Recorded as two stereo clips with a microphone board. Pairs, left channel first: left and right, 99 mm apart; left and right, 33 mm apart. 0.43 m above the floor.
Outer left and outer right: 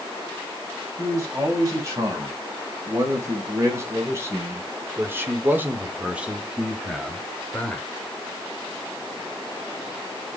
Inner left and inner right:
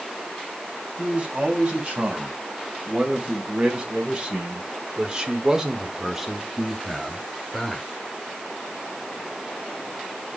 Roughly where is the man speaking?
Right.